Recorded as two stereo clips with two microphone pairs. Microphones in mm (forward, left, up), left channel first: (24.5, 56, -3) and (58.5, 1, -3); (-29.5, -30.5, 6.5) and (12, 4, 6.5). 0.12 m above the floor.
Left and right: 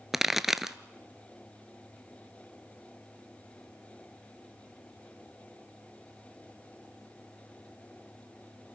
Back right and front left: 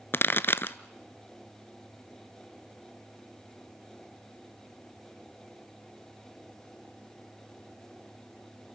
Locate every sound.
0.1 s a pop: 140° right, 0.5 m